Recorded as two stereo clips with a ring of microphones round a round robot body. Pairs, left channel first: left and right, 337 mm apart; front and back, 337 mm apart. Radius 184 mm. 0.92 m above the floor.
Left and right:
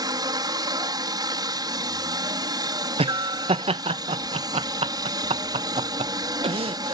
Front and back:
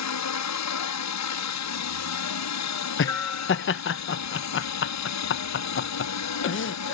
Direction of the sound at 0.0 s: 15° right.